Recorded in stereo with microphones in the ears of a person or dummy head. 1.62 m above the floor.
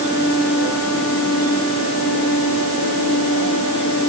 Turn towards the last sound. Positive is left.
No sound to turn to.